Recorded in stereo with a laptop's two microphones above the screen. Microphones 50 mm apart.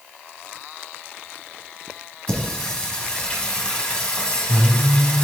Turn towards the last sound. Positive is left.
turn(degrees=15)  # may be behind; listen again after turning